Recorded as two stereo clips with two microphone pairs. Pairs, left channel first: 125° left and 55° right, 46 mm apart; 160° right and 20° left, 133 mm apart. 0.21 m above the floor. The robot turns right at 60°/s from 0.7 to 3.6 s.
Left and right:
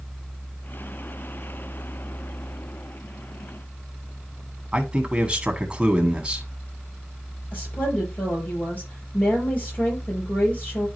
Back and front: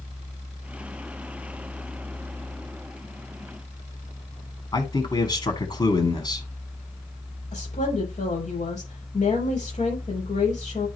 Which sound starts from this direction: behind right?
A man speaking, at 4.7 s.